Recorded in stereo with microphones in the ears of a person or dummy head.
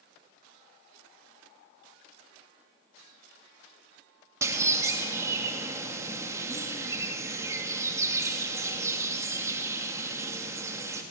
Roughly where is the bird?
Centre.